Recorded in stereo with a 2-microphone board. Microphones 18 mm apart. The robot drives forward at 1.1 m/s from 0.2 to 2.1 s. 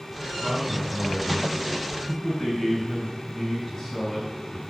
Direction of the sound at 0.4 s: 15° left (ahead or behind).